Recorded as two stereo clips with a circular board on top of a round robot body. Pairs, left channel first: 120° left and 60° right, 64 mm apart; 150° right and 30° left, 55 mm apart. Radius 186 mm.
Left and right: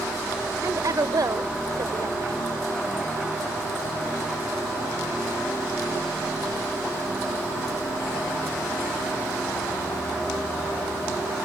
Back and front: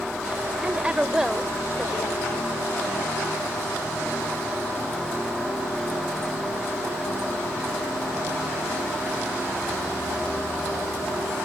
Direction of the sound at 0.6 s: 35° right.